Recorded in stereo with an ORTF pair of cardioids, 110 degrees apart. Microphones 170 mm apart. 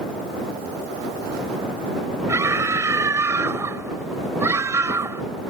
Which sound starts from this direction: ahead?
A scream, at 2.3 s.